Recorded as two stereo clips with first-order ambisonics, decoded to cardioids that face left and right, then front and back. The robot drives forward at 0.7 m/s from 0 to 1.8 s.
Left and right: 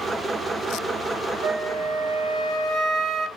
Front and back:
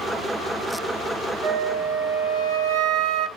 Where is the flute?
135° right, 0.5 m; by 3.3 s 150° right, 0.7 m.